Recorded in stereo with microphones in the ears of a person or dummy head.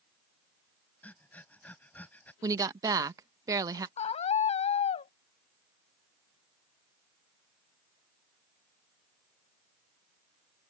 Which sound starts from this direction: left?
A scream, at 4.0 s.